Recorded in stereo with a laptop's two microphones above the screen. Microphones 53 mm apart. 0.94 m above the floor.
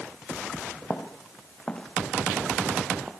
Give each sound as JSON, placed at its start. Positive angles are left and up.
{"t": 0.8, "sound": "footsteps", "side_deg": 30, "distance_m": 5.0}